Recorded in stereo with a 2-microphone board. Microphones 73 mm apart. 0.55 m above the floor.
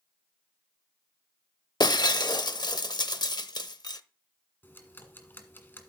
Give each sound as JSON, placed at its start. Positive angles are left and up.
{"t": 1.8, "sound": "breaking glass", "side_deg": 70, "distance_m": 0.6}
{"t": 4.6, "sound": "ticking", "side_deg": 30, "distance_m": 1.6}